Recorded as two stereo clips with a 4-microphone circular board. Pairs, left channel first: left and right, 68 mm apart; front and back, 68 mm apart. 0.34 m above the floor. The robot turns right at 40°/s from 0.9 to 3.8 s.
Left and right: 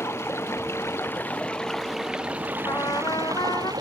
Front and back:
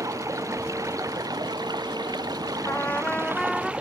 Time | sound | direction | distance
0.0 | running water | 140° left | ?
2.6 | a trumpet | 55° left | ?